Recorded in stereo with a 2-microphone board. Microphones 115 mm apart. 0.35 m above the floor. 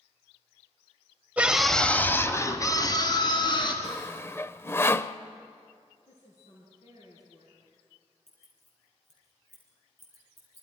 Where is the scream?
15° right (ahead or behind), 1.4 m; by 3.7 s 40° left (ahead or behind), 3.5 m.